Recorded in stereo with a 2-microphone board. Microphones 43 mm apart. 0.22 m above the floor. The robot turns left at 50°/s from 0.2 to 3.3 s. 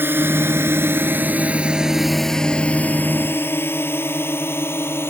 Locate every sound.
0.0 s a drone: 60° right (ahead or behind); by 5.1 s 70° left (ahead or behind)